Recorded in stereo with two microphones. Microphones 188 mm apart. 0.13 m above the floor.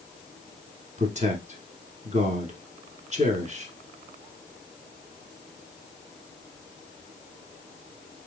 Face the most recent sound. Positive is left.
turn(degrees=-40)  # may be behind; listen again after turning